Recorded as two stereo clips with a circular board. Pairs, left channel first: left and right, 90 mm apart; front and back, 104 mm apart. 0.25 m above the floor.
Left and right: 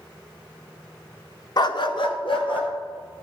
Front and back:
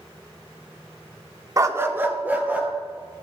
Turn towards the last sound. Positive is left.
turn(degrees=105)